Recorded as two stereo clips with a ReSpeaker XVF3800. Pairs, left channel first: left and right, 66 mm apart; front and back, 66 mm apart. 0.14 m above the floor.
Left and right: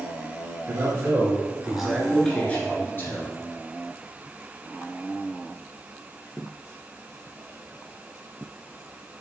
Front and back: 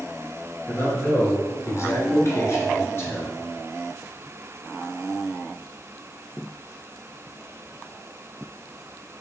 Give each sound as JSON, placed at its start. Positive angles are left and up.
{"t": 0.7, "sound": "a man speaking", "azimuth_deg": -50, "distance_m": 2.5}